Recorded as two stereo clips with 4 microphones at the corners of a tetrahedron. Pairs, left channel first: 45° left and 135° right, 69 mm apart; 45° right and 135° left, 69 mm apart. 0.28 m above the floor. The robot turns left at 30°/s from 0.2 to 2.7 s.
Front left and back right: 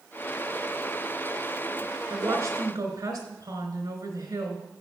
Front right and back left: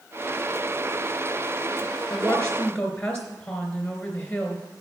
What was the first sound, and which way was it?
A woman speaking, 105° right.